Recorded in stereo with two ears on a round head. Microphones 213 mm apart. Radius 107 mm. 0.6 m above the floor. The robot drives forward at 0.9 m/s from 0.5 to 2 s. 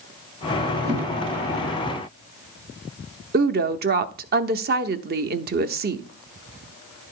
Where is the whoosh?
20° right (ahead or behind), 5.5 m; by 1.1 s 15° right (ahead or behind), 5.5 m.